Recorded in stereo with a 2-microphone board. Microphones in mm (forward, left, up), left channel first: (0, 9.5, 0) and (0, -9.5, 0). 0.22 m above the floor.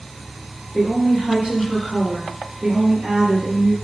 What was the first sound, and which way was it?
A woman speaking, 55° right (ahead or behind).